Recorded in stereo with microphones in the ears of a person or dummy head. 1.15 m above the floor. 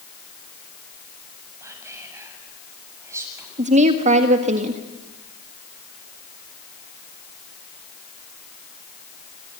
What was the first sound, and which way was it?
Whispering, 15° right (ahead or behind).